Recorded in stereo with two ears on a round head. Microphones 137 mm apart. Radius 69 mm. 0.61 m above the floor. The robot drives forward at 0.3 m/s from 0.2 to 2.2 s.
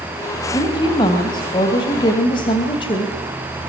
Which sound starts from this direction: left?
A woman speaking, at 0.5 s.